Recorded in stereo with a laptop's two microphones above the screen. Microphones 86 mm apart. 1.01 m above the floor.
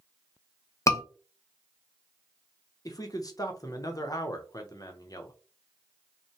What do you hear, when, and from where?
0.9 s a scream: 35° left (ahead or behind), 0.7 m
2.9 s a man speaking: 45° left (ahead or behind), 0.8 m